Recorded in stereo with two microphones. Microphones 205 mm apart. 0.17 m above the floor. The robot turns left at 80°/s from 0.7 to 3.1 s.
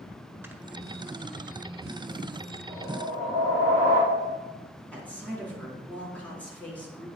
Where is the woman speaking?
5° left (ahead or behind), 1.8 m.